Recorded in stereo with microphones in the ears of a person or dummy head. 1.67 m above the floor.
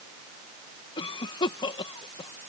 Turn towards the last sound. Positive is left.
turn(degrees=30)  # may be behind; listen again after turning